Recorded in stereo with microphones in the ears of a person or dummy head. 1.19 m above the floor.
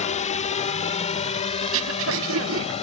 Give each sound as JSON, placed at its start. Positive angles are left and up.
{"t": 0.0, "sound": "a drone", "side_deg": 35}
{"t": 1.6, "sound": "throat clearing", "side_deg": -70}